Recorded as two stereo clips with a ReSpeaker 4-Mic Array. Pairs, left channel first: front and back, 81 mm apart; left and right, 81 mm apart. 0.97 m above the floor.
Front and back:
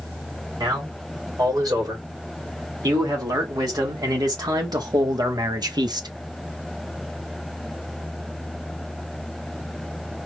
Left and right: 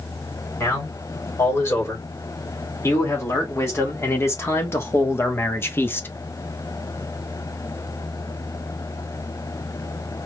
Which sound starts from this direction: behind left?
A man speaking, at 0.6 s.